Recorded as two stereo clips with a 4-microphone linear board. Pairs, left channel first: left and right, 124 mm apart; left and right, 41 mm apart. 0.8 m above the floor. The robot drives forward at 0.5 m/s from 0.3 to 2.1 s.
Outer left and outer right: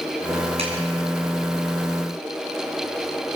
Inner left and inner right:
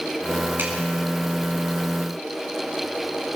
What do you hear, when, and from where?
0.6 s a clap: 50° right (ahead or behind), 7.5 m